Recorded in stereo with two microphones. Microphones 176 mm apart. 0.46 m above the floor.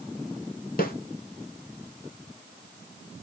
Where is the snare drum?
55° left (ahead or behind), 0.7 m.